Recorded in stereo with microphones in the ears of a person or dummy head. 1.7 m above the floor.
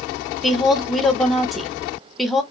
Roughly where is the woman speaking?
Centre.